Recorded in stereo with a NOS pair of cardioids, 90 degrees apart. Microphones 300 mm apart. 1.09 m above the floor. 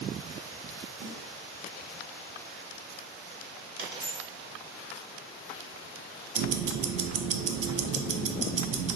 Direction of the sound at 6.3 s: 55° right.